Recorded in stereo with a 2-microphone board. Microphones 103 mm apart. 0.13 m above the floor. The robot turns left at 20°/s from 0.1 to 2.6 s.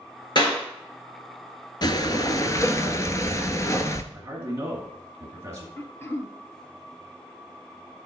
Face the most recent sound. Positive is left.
turn(degrees=25)  # may be behind; listen again after turning